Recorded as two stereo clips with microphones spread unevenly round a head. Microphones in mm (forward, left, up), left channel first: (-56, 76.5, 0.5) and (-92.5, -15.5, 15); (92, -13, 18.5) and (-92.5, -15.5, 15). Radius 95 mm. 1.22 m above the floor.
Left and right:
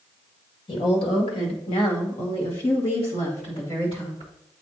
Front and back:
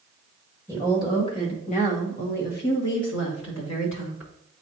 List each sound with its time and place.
0.7 s a woman speaking: 75° left, 1.9 m; by 4.3 s 15° left, 3 m